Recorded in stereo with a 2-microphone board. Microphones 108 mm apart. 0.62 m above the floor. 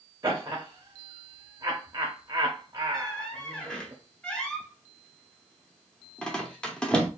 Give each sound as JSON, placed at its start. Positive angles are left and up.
{"t": 0.2, "sound": "laughter", "side_deg": -30, "distance_m": 0.8}
{"t": 2.9, "sound": "a squeak", "side_deg": 10, "distance_m": 0.8}